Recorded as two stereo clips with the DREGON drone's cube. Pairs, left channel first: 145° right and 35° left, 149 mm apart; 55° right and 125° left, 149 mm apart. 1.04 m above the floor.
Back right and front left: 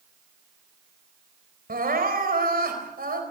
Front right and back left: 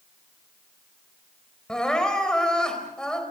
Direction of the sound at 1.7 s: 30° left.